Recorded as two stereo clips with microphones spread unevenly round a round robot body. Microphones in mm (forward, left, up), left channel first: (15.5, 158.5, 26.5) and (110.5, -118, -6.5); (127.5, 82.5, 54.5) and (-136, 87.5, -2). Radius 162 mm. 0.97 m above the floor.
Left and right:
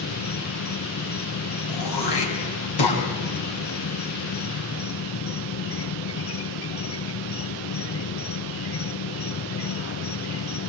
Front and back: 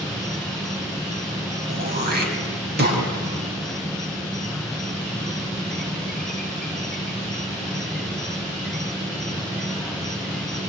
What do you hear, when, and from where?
0.0 s an insect: 105° left, 0.7 m
1.7 s throat clearing: 125° left, 5 m